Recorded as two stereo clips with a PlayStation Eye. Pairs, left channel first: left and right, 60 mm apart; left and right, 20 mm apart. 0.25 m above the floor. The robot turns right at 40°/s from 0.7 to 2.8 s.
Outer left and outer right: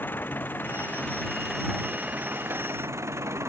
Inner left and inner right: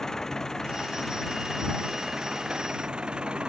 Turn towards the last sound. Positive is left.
turn(degrees=-130)